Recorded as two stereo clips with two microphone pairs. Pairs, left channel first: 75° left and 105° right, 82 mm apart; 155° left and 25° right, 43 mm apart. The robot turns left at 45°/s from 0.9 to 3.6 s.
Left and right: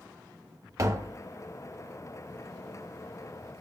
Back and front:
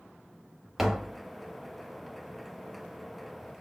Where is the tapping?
105° right, 0.5 m; by 1.2 s 120° right, 0.5 m.